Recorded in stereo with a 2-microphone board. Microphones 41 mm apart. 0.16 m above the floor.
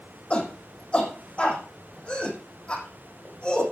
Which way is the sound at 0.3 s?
25° left (ahead or behind).